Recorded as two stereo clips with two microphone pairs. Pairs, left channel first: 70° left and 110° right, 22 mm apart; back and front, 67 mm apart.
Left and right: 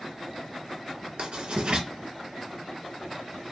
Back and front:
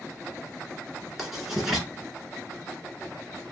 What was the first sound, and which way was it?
Writing, 80° right.